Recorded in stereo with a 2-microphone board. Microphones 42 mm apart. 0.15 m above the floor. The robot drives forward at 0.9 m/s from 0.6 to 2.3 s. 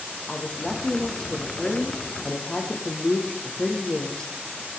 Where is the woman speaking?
20° left (ahead or behind), 8 m; by 4.3 s 25° left (ahead or behind), 6.5 m.